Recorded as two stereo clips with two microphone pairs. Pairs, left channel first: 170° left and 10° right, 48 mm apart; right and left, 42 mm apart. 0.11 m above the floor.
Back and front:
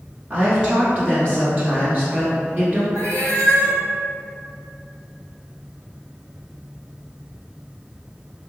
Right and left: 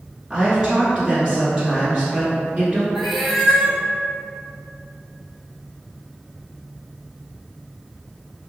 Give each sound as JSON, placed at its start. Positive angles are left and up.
{"t": 0.3, "sound": "a woman speaking", "azimuth_deg": 20, "distance_m": 1.3}
{"t": 3.0, "sound": "a cat meowing", "azimuth_deg": -5, "distance_m": 0.8}